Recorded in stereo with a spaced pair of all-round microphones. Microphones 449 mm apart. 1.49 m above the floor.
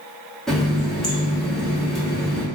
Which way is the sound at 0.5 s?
Centre (ahead or behind).